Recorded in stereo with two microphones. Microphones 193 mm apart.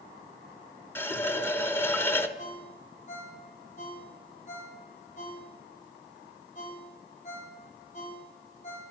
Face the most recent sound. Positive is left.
turn(degrees=40)  # may be behind; listen again after turning